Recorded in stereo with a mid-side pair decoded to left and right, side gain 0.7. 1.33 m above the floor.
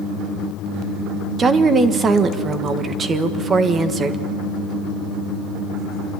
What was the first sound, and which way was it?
A woman speaking, 30° right.